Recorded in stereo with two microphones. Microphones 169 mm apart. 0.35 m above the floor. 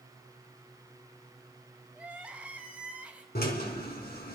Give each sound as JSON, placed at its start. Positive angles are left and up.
{"t": 1.9, "sound": "crying", "side_deg": -10, "distance_m": 1.4}
{"t": 3.4, "sound": "a drill", "side_deg": 70, "distance_m": 3.0}